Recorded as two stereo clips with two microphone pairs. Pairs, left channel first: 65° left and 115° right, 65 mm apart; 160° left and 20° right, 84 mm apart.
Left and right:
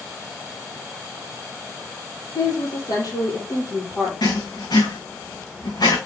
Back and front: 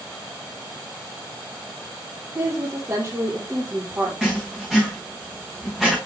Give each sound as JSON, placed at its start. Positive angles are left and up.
{"t": 2.4, "sound": "a woman speaking", "azimuth_deg": 35, "distance_m": 5.0}
{"t": 4.2, "sound": "writing", "azimuth_deg": 70, "distance_m": 4.0}